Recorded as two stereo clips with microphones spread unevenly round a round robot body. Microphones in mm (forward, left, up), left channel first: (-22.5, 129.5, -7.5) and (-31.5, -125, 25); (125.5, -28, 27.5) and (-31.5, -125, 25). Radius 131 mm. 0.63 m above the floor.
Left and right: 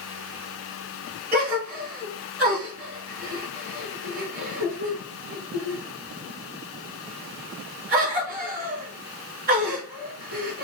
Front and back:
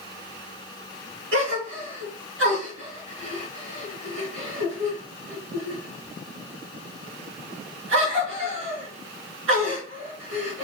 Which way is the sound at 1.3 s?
150° right.